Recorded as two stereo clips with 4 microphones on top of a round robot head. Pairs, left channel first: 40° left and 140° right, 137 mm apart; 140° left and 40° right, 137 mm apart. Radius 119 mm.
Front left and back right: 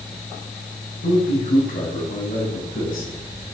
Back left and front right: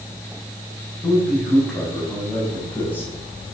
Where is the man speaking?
50° left, 5.5 m; by 3.1 s 65° left, 5 m.